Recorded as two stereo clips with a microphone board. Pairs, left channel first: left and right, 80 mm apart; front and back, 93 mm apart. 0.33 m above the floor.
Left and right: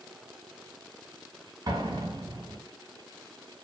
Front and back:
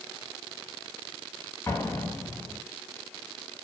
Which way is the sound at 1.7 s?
60° right.